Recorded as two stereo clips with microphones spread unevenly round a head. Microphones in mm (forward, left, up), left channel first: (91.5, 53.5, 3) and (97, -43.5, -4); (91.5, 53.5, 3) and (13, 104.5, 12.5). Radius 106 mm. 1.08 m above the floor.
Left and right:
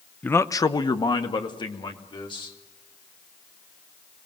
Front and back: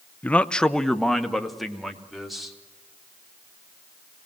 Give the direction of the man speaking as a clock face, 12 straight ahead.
11 o'clock.